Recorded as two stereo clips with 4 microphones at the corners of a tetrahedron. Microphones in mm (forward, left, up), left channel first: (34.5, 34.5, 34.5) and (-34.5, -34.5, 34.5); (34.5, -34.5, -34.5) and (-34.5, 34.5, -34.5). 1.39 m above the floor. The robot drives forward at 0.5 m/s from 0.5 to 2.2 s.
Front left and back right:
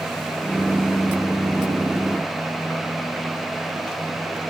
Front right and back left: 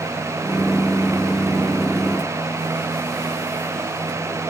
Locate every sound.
Only background noise.